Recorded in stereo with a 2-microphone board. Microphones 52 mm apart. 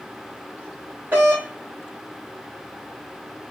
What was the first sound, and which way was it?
A doorbell, 35° right (ahead or behind).